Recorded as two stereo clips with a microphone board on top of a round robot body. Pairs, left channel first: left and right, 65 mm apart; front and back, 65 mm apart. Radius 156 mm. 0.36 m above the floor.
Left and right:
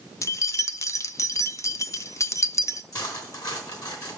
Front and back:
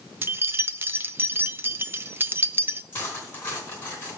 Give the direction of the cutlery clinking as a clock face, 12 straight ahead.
10 o'clock.